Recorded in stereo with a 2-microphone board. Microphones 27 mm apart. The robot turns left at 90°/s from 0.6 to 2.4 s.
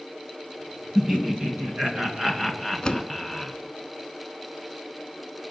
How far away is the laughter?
About 2.0 m.